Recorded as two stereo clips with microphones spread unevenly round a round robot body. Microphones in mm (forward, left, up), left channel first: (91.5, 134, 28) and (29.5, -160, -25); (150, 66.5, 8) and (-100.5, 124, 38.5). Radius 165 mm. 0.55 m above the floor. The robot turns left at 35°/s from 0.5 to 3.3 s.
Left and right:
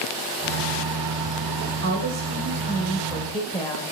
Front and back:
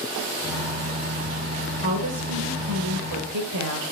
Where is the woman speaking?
145° right, 2 m; by 3.8 s 160° left, 2 m.